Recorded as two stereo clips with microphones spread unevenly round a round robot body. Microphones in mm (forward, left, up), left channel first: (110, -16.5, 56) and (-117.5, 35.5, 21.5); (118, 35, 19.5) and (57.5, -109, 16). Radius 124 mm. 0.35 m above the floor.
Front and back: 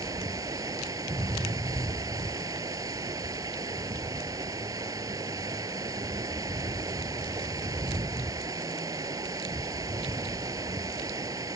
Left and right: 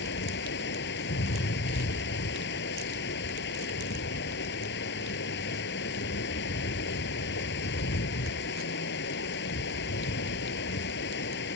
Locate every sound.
0.0 s running water: 90° left